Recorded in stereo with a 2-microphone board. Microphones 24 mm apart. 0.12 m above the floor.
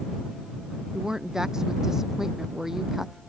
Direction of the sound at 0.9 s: 20° right (ahead or behind).